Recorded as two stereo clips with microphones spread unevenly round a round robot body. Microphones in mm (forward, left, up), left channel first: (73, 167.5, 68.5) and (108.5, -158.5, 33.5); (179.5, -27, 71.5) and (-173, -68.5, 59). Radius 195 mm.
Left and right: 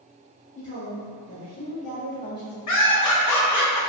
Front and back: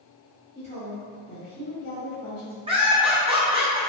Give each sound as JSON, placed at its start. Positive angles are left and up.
{"t": 0.6, "sound": "a woman speaking", "azimuth_deg": 115, "distance_m": 1.3}
{"t": 2.7, "sound": "laughter", "azimuth_deg": 115, "distance_m": 0.8}